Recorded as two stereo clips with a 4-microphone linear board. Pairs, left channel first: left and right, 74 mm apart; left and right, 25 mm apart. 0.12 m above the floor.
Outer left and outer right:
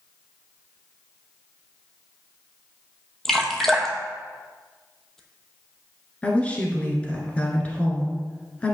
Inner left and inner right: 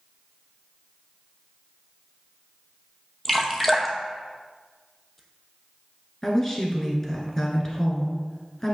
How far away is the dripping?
About 0.9 m.